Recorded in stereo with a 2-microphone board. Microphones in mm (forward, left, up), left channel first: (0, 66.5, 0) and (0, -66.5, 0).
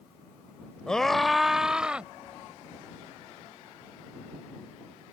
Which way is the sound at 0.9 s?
5° left (ahead or behind).